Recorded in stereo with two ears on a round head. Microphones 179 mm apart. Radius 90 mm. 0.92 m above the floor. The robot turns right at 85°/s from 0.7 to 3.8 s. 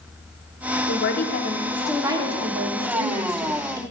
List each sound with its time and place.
0.9 s a woman speaking: 95° left, 2.5 m; by 3.8 s 15° right, 2.5 m